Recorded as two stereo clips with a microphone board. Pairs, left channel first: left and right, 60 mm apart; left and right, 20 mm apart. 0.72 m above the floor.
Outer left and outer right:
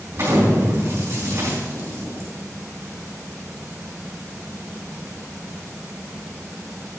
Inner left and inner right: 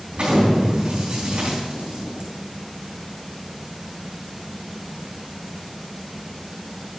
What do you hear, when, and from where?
0.1 s an explosion: 45° right (ahead or behind), 4 m